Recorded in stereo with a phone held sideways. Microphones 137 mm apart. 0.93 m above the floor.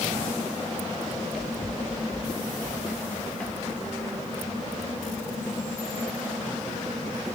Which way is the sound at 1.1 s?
Centre (ahead or behind).